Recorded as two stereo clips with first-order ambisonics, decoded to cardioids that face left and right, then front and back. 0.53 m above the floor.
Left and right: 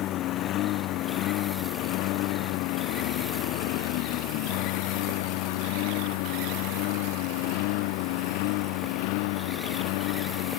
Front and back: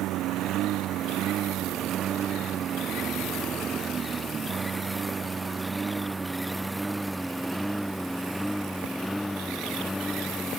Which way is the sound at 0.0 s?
135° left.